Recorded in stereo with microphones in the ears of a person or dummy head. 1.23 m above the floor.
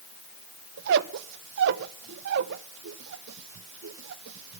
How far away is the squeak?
About 0.7 m.